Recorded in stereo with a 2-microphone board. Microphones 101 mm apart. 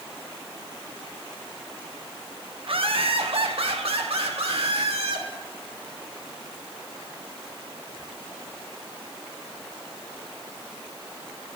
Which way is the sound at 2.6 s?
60° right (ahead or behind).